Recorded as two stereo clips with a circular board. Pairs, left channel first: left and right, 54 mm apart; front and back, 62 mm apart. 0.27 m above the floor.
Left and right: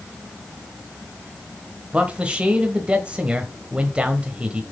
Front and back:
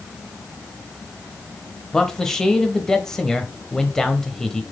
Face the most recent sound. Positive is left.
turn(degrees=-65)